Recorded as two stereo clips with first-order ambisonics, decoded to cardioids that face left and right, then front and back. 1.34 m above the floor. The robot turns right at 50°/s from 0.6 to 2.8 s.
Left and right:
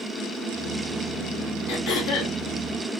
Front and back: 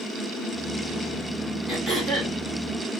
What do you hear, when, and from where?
1.7 s throat clearing: 70° left, 1.6 m; by 2.4 s 100° left, 1.6 m